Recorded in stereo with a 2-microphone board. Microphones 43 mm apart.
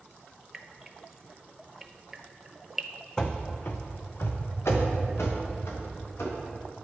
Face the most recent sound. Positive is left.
turn(degrees=85)